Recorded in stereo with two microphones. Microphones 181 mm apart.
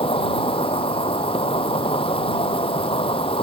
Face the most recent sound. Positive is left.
turn(degrees=30)  # may be behind; listen again after turning